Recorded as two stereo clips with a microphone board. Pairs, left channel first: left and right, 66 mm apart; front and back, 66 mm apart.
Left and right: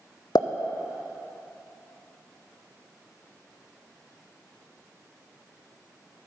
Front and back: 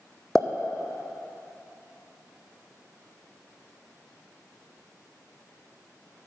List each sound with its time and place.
0.3 s a pop: 85° left, 0.9 m